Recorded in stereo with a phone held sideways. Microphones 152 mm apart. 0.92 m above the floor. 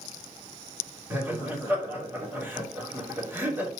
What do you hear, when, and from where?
1.1 s laughter: 15° right (ahead or behind), 3 m